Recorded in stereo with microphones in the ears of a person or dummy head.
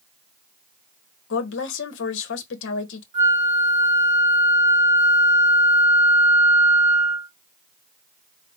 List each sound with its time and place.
1.3 s a woman speaking: 75° left (ahead or behind), 1.0 m
3.1 s a flute: 35° right (ahead or behind), 0.7 m